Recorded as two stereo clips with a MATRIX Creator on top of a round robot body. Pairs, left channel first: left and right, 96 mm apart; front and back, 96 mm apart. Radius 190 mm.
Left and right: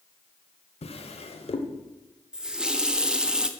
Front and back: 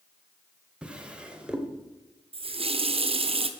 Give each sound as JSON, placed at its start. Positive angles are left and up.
{"t": 0.8, "sound": "a drawer", "azimuth_deg": 100, "distance_m": 1.4}
{"t": 2.3, "sound": "a running tap", "azimuth_deg": -170, "distance_m": 1.1}